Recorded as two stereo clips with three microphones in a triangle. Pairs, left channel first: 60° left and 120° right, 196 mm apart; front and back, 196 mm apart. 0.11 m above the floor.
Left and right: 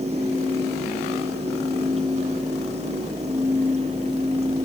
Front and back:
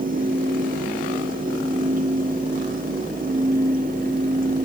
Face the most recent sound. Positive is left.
No sound to turn to.